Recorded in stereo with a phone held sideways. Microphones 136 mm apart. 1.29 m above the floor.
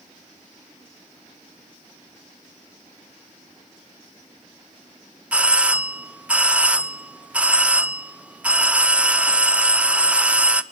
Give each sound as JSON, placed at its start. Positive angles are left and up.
{"t": 5.3, "sound": "a doorbell", "side_deg": -10, "distance_m": 0.5}